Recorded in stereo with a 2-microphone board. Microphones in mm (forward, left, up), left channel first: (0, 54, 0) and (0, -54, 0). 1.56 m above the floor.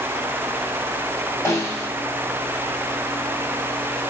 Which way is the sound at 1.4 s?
25° left (ahead or behind).